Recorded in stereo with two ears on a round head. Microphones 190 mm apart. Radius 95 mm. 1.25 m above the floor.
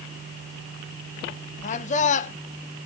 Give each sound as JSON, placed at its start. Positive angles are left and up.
{"t": 1.6, "sound": "a man speaking", "side_deg": 35, "distance_m": 0.9}